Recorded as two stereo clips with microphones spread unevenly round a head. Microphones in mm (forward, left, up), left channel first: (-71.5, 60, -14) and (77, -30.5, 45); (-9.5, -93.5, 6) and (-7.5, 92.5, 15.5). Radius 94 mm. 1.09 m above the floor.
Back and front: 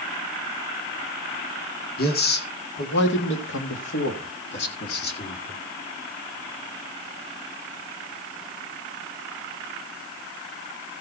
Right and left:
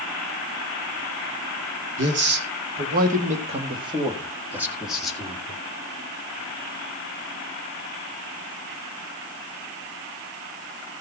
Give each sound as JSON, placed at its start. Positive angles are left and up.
{"t": 2.0, "sound": "a man speaking", "azimuth_deg": 115, "distance_m": 2.0}